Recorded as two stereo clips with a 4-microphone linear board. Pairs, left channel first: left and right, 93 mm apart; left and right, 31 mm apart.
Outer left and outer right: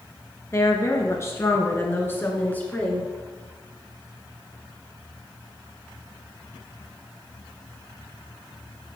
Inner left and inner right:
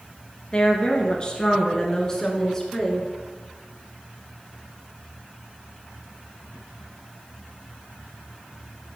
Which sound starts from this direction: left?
A woman speaking, at 0.5 s.